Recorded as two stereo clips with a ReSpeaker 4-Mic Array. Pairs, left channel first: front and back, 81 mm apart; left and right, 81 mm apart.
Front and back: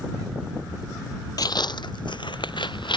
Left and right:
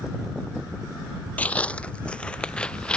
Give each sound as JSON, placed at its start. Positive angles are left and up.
{"t": 1.4, "sound": "footsteps", "azimuth_deg": 20}